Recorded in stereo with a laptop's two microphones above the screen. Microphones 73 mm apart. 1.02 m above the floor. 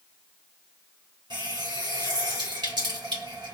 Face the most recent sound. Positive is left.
turn(degrees=-85)